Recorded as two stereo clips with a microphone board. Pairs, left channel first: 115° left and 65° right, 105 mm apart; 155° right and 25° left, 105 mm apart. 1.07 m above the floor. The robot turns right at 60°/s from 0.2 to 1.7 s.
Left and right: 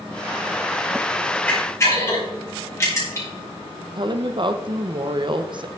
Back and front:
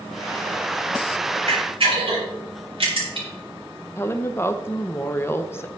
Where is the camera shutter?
35° left, 5 m; by 3.3 s 50° left, 5 m.